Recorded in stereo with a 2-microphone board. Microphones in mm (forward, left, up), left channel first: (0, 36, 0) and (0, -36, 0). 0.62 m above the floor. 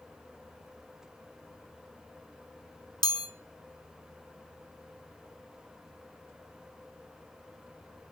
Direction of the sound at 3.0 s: 75° left (ahead or behind).